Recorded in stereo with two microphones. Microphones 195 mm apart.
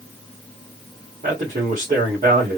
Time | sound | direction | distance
1.2 | a man speaking | 40° right (ahead or behind) | 3 m